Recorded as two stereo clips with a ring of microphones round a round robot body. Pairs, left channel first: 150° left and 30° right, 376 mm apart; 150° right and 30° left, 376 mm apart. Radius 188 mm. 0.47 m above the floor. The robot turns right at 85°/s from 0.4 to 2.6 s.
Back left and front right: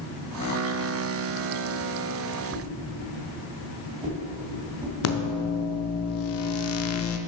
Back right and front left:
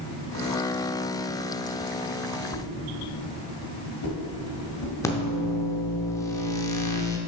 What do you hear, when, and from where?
2.5 s a whoosh: 110° right, 1.7 m; by 5.0 s 105° right, 1.7 m
5.0 s a microwave: 135° left, 0.5 m